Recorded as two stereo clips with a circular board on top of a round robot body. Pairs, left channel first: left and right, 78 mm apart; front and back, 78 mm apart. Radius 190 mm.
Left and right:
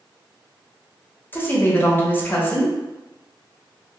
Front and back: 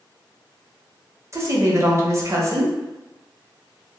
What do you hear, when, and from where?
1.3 s a woman speaking: 145° left, 1.2 m